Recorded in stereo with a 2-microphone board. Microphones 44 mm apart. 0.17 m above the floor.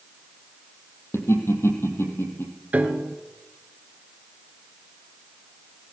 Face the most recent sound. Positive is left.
turn(degrees=-35)  # may be behind; listen again after turning